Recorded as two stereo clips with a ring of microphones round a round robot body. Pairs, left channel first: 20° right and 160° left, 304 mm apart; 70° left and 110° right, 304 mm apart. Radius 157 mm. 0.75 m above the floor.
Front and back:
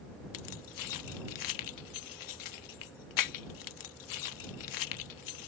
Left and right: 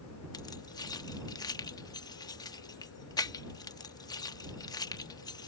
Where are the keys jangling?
10° right.